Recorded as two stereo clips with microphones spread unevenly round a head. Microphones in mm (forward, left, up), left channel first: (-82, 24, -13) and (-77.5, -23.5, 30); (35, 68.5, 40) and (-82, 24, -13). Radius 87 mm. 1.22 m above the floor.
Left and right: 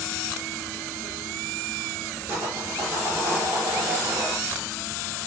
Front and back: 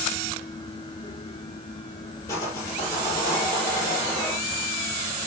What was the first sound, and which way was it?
Sawing, 45° right.